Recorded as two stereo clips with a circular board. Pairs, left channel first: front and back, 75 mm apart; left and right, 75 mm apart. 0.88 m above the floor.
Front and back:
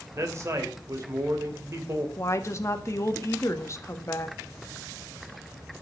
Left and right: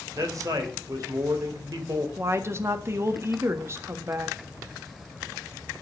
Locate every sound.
0.1 s a man speaking: 130° right, 3 m
2.2 s a woman speaking: 40° right, 1.5 m